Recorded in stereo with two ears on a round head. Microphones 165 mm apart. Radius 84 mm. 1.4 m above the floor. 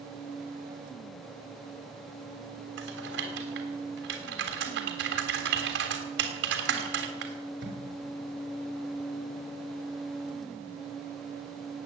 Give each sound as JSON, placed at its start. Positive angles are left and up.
{"t": 2.8, "sound": "typing on a keyboard", "side_deg": -75, "distance_m": 3.0}